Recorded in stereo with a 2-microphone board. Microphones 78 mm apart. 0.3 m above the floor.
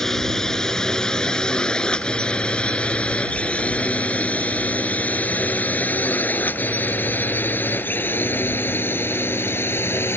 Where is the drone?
5° left (ahead or behind); by 10.2 s 30° left (ahead or behind).